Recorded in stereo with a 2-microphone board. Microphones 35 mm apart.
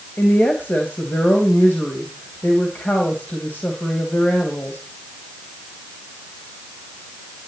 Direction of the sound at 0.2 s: 55° left (ahead or behind).